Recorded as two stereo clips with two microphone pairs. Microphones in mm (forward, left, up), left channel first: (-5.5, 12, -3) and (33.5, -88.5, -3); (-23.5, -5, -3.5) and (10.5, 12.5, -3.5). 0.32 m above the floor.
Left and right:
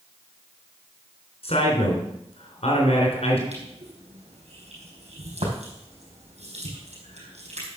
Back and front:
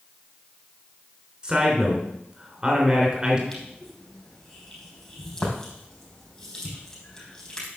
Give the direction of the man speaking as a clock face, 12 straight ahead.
9 o'clock.